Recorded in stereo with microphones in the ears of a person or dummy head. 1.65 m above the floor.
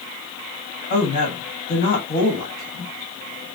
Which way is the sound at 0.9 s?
45° left (ahead or behind).